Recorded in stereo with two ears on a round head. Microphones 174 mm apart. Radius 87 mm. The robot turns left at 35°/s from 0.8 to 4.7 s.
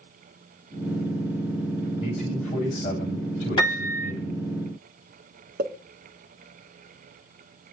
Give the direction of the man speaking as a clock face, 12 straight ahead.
6 o'clock.